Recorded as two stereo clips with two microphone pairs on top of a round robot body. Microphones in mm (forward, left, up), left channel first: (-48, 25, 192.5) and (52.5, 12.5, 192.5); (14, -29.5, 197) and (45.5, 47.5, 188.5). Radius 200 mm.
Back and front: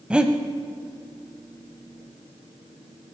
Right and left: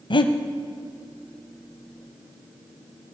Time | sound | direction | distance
0.1 | breathing | 90° right | 0.8 m